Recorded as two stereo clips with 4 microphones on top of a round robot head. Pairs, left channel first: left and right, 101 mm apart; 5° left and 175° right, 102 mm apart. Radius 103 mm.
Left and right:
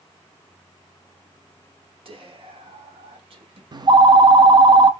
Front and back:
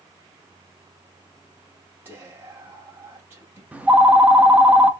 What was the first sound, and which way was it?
Whispering, 105° right.